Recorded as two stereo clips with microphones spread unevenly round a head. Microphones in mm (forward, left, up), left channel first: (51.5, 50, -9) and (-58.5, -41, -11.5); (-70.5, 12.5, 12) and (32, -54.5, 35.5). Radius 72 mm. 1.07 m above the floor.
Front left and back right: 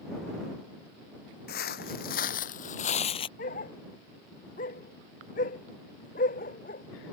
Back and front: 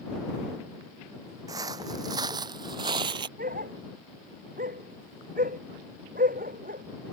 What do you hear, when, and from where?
1.5 s footsteps: 30° left; by 3.3 s straight ahead
3.4 s a dog barking: 5° left